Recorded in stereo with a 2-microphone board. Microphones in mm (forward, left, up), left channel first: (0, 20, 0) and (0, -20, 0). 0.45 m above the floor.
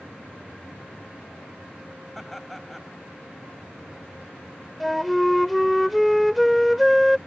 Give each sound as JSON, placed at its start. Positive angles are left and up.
{"t": 2.1, "sound": "laughter", "side_deg": 5}
{"t": 4.8, "sound": "a flute", "side_deg": 0}